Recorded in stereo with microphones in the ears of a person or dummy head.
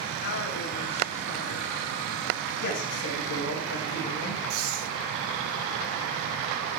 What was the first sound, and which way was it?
A woman speaking, 45° left (ahead or behind).